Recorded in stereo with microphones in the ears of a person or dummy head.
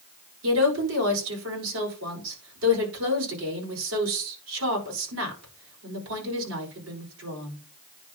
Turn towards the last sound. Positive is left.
turn(degrees=-80)